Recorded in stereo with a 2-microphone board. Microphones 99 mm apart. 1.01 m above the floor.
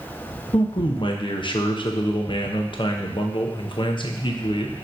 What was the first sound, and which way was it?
A man speaking, 60° left (ahead or behind).